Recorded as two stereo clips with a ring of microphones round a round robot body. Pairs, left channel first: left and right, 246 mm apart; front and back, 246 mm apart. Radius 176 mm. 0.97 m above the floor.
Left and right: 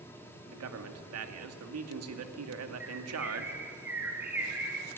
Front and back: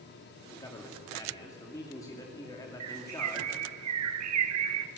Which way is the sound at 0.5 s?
80° right.